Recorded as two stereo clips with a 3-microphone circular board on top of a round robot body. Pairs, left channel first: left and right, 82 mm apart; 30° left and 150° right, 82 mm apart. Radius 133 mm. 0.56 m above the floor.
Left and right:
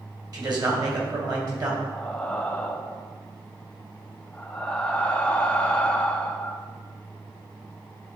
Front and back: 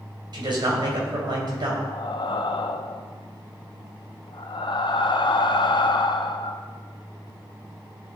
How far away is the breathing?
About 0.5 m.